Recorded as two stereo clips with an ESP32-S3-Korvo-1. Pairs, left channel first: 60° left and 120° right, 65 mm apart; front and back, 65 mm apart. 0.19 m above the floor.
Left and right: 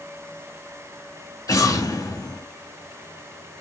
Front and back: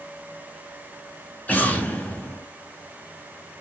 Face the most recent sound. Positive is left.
turn(degrees=65)